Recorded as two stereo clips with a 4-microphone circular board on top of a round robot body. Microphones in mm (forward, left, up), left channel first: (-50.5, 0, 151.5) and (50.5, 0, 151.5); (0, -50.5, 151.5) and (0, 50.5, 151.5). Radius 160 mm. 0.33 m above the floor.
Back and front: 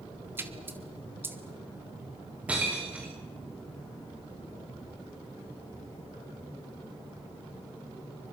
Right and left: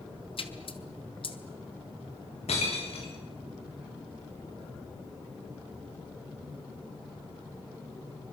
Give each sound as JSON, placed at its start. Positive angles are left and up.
{"t": 0.4, "sound": "a splash", "azimuth_deg": -70, "distance_m": 2.5}
{"t": 2.5, "sound": "breaking glass", "azimuth_deg": -80, "distance_m": 7.5}